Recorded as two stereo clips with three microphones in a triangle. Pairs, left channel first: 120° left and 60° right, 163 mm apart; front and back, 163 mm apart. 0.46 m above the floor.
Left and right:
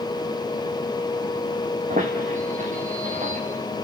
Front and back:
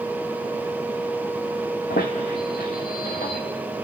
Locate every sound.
1.9 s a squeak: 20° right, 2.5 m